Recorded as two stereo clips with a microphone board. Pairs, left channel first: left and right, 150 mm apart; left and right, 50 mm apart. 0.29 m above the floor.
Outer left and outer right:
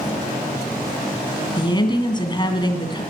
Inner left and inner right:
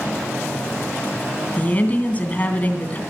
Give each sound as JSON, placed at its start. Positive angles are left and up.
{"t": 1.6, "sound": "a woman speaking", "side_deg": 30, "distance_m": 2.0}